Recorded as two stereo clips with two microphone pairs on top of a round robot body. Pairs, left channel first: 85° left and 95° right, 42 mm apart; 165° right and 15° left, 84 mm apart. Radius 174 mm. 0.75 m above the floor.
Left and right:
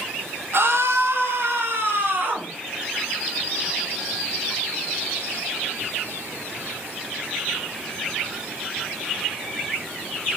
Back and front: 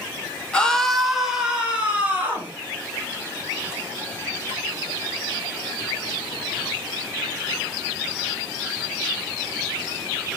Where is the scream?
95° right, 2 m; by 2.5 s 60° right, 4.5 m.